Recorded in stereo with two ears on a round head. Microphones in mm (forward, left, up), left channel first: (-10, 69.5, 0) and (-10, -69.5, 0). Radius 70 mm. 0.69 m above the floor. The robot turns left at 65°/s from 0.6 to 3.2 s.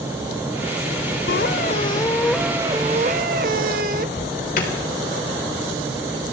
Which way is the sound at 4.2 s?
55° left (ahead or behind).